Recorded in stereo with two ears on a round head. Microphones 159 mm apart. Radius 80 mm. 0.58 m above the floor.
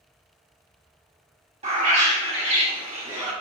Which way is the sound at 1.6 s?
35° right (ahead or behind).